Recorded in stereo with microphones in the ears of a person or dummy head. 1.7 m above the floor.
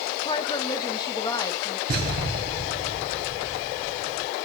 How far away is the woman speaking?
About 1.7 m.